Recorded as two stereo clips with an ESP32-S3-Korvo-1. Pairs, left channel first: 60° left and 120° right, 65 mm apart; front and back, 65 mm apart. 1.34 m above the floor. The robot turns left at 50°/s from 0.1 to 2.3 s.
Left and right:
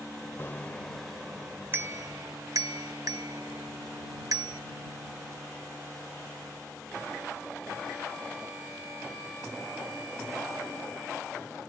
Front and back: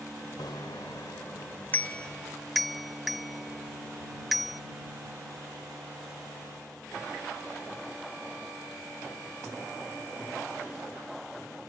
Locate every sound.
0.4 s a bicycle bell: 5° left; by 4.6 s 90° right